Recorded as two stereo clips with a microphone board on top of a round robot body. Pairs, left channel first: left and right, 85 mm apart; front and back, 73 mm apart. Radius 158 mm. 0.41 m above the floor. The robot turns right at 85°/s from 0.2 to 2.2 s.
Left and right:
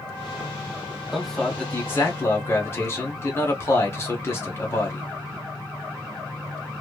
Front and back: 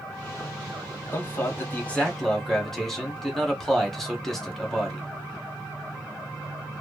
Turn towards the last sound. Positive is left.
turn(degrees=80)